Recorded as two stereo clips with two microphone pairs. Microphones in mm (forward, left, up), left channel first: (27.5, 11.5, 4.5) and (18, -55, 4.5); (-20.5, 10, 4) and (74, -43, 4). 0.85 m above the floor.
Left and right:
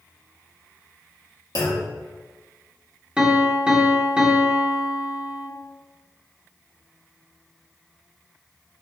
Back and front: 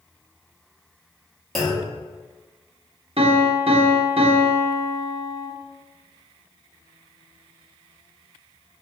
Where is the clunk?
60° left, 1.3 m.